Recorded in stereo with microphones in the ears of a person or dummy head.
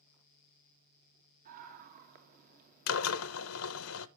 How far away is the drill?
About 0.7 m.